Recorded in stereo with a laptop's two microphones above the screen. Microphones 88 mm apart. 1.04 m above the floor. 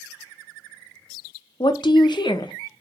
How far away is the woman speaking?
About 0.5 m.